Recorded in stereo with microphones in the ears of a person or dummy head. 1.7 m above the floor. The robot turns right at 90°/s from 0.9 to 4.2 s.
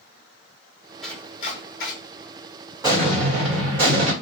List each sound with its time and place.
1.0 s chopping: centre (ahead or behind), 1.3 m; by 1.9 s 65° left (ahead or behind), 1.3 m
2.8 s an explosion: 170° right, 1.4 m; by 4.1 s 50° right, 1.4 m